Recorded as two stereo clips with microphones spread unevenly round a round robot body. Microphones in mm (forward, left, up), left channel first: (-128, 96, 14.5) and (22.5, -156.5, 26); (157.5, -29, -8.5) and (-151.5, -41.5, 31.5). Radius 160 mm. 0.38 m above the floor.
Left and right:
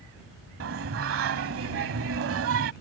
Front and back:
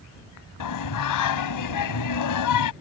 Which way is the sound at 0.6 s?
10° right.